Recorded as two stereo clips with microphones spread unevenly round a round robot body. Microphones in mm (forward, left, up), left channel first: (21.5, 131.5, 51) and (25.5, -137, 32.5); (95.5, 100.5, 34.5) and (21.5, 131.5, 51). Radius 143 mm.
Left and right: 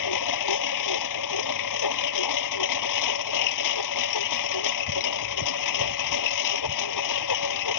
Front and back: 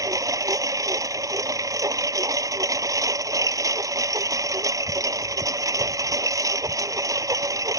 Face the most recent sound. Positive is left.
turn(degrees=115)